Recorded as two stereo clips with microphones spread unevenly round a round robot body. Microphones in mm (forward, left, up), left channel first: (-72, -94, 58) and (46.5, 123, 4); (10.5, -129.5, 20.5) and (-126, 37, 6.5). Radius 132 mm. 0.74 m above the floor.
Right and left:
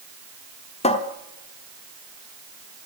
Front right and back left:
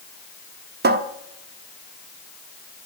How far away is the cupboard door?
About 1.0 m.